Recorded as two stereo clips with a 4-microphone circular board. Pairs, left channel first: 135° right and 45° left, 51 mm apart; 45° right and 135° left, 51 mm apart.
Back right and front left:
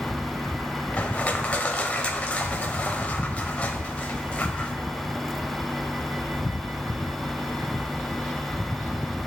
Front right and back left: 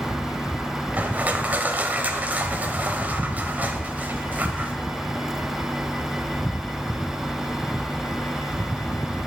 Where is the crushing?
175° left, 0.7 m.